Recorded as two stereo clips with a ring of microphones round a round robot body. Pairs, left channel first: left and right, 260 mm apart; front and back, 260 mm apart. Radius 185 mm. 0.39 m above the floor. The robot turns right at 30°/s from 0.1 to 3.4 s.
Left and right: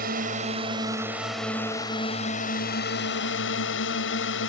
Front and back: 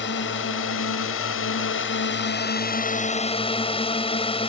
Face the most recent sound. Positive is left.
turn(degrees=60)